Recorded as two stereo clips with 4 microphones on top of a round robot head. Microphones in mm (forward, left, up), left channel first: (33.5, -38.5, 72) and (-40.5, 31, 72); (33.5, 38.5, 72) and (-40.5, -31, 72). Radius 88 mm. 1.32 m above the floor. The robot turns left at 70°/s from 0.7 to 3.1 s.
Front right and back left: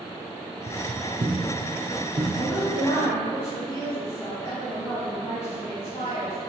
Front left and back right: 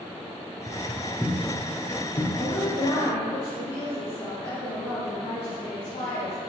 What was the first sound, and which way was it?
Footsteps, 150° left.